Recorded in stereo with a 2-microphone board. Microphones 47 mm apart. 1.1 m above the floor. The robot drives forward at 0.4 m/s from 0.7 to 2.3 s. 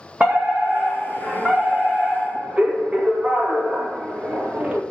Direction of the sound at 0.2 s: 25° right (ahead or behind).